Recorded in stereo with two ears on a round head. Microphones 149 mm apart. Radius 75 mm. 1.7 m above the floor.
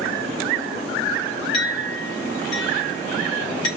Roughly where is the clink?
Left.